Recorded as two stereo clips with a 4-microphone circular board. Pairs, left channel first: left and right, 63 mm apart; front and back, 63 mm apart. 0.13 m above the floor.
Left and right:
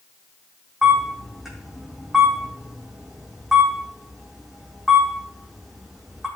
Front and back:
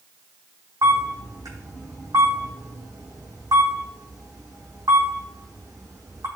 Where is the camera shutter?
175° right, 4.5 m.